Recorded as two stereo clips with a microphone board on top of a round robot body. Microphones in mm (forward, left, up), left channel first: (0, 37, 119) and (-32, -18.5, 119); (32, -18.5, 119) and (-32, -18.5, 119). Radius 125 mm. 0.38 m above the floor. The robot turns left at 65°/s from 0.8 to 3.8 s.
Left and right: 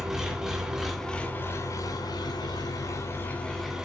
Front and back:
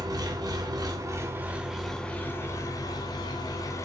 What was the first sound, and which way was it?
An engine running, 155° left.